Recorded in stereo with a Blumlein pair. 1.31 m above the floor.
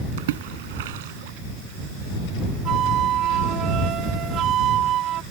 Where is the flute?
30° right.